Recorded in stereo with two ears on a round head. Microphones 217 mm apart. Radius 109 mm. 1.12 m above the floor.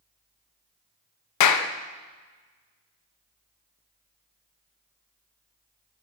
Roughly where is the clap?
Left.